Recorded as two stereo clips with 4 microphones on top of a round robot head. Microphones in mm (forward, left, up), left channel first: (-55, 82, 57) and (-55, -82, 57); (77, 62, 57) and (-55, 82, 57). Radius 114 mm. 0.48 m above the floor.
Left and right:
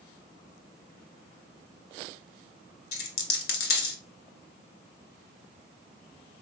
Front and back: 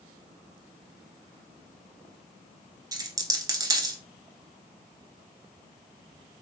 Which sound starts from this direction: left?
A dropped coin, at 2.9 s.